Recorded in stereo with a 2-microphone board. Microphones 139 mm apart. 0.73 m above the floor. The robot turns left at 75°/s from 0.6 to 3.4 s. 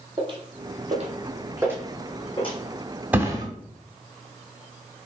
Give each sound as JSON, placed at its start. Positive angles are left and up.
{"t": 0.2, "sound": "footsteps", "side_deg": -35, "distance_m": 0.9}
{"t": 3.1, "sound": "a thud", "side_deg": -10, "distance_m": 1.1}